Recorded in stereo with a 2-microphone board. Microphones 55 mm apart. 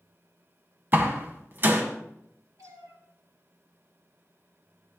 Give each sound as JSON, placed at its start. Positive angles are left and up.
{"t": 0.9, "sound": "a door slam", "side_deg": -40, "distance_m": 2.0}
{"t": 2.6, "sound": "a cat meowing", "side_deg": -80, "distance_m": 4.0}